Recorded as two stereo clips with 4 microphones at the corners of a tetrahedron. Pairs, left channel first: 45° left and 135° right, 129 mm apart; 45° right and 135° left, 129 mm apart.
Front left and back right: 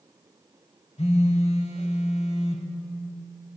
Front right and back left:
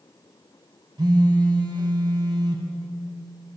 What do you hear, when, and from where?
1.0 s a phone buzzing: 80° left, 0.7 m